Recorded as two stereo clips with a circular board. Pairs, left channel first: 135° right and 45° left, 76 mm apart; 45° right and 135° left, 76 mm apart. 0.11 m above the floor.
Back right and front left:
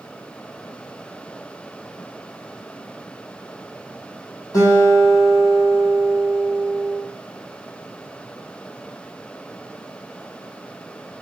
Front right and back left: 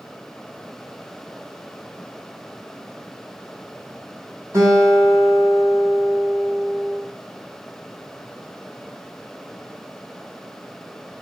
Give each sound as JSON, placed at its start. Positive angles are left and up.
{"t": 4.5, "sound": "a guitar", "azimuth_deg": -175, "distance_m": 2.5}